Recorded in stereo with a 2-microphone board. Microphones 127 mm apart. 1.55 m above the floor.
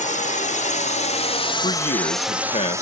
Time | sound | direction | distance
0.0 | a drone | 80° left | ?
1.6 | a man speaking | 55° left (ahead or behind) | ?